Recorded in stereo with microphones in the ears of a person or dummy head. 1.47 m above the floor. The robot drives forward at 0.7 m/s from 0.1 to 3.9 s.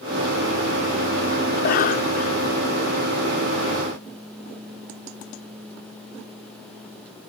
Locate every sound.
1.5 s a cough: 45° left (ahead or behind); by 2.5 s 40° left (ahead or behind)